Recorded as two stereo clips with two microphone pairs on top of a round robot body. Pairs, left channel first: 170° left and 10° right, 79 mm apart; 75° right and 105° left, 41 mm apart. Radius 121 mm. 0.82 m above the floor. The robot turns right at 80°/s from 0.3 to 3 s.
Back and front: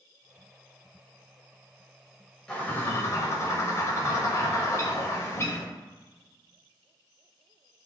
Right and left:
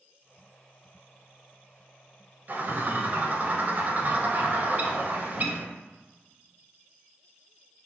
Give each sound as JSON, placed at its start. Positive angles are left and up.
{"t": 2.5, "sound": "a bird", "azimuth_deg": 95, "distance_m": 1.0}